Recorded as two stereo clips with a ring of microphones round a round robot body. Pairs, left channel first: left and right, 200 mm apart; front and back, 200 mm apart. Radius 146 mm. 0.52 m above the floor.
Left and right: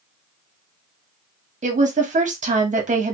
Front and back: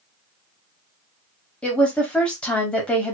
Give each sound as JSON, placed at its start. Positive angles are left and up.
{"t": 1.6, "sound": "a woman speaking", "azimuth_deg": -80, "distance_m": 1.2}